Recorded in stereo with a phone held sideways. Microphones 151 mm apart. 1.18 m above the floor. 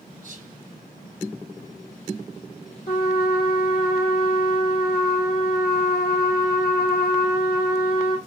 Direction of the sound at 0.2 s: 55° right (ahead or behind).